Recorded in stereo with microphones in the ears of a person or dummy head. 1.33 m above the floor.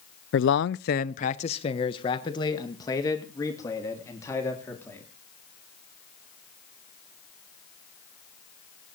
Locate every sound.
0.3 s a man speaking: 60° left (ahead or behind), 0.5 m; by 5.0 s 15° left (ahead or behind), 3.5 m